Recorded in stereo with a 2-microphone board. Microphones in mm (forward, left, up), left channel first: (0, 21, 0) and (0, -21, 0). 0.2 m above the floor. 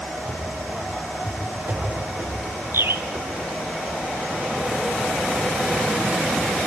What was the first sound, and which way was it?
Running footsteps, 70° right (ahead or behind).